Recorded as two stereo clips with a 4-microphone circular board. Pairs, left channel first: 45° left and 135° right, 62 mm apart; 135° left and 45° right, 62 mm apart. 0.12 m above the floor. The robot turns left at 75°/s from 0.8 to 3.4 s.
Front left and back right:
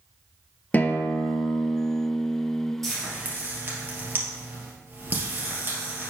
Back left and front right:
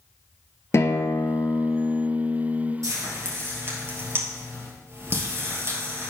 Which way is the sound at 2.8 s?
40° right.